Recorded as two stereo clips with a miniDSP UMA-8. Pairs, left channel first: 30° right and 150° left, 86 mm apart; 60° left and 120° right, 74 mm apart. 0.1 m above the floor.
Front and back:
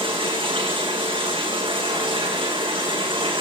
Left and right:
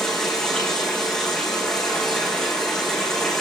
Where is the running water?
145° left, 7.5 m.